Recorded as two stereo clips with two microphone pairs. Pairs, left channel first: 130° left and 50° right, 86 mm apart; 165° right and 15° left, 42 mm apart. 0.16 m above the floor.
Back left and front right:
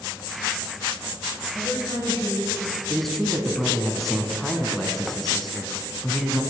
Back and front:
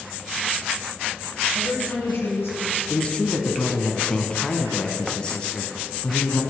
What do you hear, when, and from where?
1.5 s a woman speaking: 175° left, 4 m
2.9 s a man speaking: 150° right, 1.1 m